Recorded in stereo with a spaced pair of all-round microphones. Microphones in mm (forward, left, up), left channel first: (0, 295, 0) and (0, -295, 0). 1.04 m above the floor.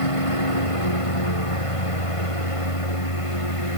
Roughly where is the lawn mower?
Left.